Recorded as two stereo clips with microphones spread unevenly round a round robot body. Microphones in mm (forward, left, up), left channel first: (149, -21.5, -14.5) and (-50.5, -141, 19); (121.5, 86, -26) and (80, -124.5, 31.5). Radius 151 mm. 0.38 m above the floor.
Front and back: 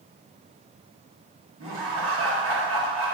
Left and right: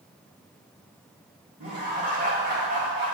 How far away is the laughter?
About 1.8 m.